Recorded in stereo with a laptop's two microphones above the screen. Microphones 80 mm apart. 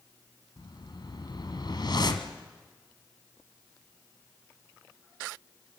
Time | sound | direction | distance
0.6 | a whoosh | 60° left (ahead or behind) | 2.0 m